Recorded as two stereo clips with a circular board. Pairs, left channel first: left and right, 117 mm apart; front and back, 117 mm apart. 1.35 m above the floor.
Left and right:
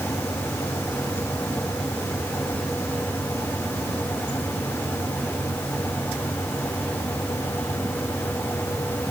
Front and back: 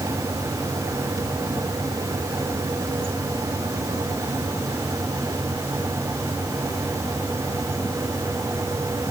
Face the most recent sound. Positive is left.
No sound to turn to.